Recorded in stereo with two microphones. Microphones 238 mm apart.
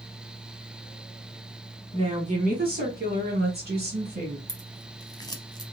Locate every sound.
1.9 s a woman speaking: 25° right (ahead or behind), 1.3 m; by 4.4 s 40° right (ahead or behind), 2.0 m
4.5 s scissors: 15° left (ahead or behind), 0.7 m